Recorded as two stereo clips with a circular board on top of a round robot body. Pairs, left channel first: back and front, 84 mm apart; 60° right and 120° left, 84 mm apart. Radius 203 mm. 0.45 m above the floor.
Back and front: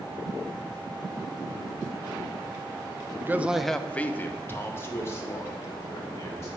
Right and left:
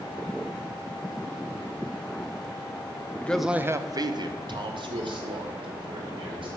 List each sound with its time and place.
3.2 s a man speaking: 15° right, 0.9 m; by 6.5 s 125° left, 4 m